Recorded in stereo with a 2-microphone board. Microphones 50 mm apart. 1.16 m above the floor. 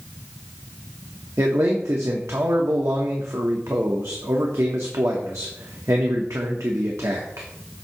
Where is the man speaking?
85° right, 1.0 m.